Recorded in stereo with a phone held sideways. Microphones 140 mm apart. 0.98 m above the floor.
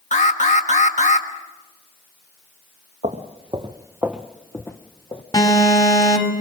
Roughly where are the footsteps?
Right.